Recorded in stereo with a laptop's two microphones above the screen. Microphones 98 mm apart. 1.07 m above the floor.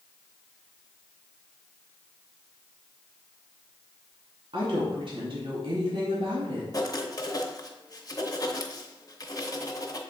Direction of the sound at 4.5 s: 60° right (ahead or behind).